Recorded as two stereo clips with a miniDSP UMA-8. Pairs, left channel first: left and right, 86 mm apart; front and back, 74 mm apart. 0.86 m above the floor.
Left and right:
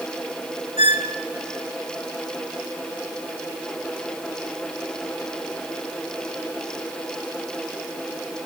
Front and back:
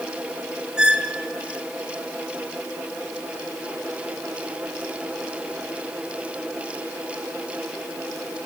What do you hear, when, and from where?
0.8 s a squeak: 100° right, 1.4 m